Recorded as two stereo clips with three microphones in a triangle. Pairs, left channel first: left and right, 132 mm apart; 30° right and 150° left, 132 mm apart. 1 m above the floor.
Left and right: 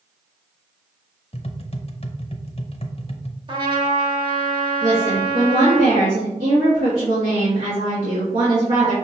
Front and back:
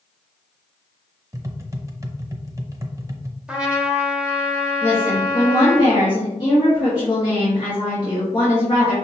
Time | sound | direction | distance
1.3 | tapping | 95° left | 0.6 m
3.5 | a trumpet | 130° right | 1.0 m
4.8 | a woman speaking | 80° right | 1.6 m